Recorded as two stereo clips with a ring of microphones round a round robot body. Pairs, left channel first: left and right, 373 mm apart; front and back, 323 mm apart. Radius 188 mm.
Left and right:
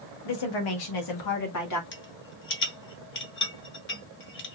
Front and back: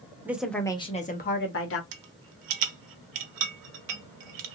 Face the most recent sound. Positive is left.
turn(degrees=150)